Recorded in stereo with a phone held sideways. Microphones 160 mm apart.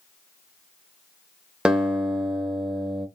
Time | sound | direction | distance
1.6 | a guitar | 5° right (ahead or behind) | 0.8 m